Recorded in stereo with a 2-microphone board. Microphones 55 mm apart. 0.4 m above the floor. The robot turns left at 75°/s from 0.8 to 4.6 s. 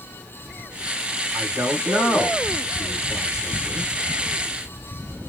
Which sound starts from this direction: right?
A man speaking, at 1.3 s.